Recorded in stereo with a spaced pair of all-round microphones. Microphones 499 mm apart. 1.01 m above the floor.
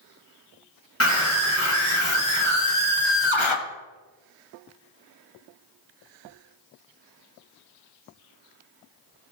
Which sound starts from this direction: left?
A scream, at 1.0 s.